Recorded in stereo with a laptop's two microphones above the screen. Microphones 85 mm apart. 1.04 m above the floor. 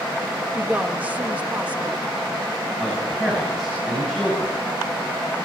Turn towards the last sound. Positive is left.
turn(degrees=-5)  # may be behind; listen again after turning